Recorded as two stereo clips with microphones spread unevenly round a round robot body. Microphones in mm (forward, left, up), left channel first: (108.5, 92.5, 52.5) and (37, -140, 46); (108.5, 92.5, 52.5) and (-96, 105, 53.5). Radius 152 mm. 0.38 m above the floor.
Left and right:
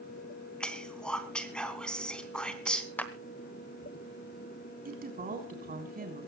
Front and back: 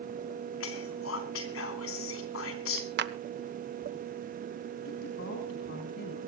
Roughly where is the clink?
No clink in this recording.